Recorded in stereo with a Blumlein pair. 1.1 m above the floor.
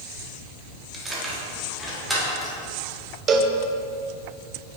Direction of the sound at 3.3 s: 25° right.